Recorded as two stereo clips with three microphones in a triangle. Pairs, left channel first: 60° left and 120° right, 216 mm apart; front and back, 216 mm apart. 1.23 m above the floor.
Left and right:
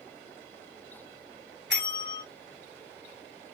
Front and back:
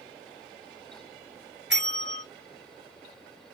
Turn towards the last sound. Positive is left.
turn(degrees=-150)